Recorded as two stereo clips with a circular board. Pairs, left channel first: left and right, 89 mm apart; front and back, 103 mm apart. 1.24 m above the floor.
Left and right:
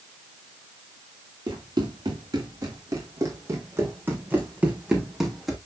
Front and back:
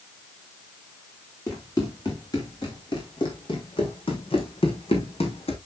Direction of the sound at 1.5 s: 55° right.